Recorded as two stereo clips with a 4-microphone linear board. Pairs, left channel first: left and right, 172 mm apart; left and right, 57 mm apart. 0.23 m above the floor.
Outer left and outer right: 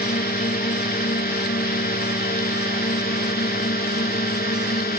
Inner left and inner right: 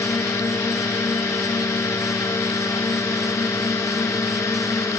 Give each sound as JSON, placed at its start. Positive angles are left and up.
{"t": 0.0, "sound": "a drone", "side_deg": 60}